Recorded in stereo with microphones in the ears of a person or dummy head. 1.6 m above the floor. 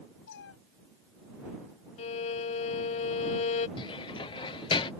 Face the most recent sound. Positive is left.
turn(degrees=20)  # may be behind; listen again after turning